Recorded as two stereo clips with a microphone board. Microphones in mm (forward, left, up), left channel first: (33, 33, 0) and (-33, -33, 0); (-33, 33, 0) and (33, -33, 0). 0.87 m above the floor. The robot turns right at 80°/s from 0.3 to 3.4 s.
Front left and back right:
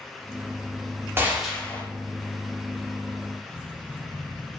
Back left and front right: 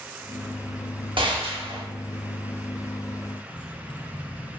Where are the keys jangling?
150° left, 0.7 m.